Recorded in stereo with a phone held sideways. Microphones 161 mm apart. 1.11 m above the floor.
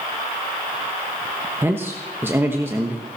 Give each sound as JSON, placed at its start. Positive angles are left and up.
{"t": 1.6, "sound": "a man speaking", "side_deg": -15, "distance_m": 1.2}